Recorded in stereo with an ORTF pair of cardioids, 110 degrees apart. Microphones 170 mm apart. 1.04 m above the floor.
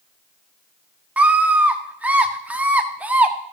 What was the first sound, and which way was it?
A scream, 10° right.